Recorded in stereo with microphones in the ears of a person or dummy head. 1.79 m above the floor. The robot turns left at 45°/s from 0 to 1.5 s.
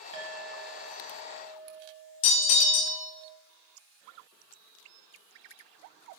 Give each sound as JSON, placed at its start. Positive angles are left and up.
{"t": 0.1, "sound": "a clink", "azimuth_deg": -80, "distance_m": 1.2}
{"t": 2.2, "sound": "a bell", "side_deg": 35, "distance_m": 0.6}